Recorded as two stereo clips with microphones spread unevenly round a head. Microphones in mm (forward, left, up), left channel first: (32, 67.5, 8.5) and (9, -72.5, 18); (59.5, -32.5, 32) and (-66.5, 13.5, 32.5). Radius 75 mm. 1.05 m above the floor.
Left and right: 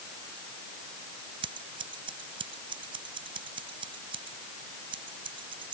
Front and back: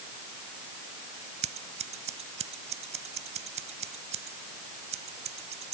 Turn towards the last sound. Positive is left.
turn(degrees=-160)